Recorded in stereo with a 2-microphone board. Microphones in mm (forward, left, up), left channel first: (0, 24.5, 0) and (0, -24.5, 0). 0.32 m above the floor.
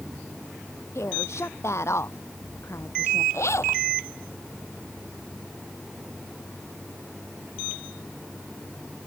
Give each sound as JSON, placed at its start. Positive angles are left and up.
{"t": 0.9, "sound": "a woman speaking", "side_deg": 75}
{"t": 3.3, "sound": "a zipper", "side_deg": 80}